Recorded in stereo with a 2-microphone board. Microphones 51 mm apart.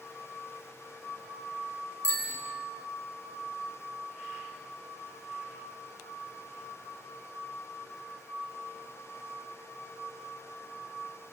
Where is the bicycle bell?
65° left (ahead or behind), 9 m.